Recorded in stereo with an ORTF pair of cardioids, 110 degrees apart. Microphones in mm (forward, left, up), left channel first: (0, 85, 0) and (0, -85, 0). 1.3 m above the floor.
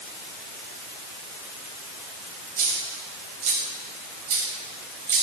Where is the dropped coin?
55° right, 3.5 m.